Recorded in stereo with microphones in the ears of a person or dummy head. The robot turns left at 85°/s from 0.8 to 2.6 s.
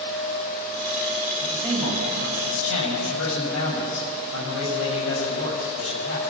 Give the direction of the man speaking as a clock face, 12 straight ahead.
6 o'clock.